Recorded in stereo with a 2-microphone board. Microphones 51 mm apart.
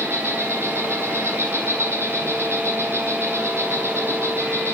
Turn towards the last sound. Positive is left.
turn(degrees=-55)  # may be behind; listen again after turning